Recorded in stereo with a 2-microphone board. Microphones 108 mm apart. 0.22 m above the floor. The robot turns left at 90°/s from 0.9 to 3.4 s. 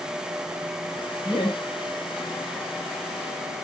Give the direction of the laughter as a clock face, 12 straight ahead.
7 o'clock.